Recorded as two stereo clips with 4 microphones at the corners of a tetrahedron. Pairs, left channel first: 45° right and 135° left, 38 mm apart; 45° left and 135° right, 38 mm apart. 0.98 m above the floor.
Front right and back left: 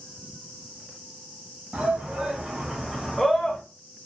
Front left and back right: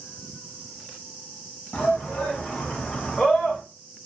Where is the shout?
85° left, 1.6 m; by 3.6 s 35° right, 0.8 m.